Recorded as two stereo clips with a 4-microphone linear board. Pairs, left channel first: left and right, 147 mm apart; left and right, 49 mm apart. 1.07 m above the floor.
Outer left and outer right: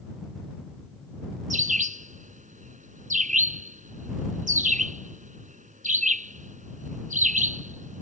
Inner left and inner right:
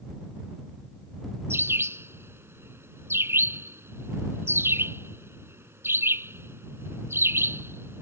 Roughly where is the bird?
Right.